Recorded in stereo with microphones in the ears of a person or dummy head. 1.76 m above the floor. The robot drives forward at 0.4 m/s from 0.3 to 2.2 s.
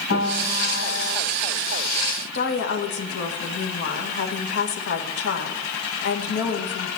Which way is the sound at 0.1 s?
65° left (ahead or behind).